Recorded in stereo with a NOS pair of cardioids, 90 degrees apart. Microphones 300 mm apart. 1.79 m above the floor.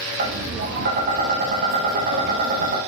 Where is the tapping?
40° right, 1.0 m.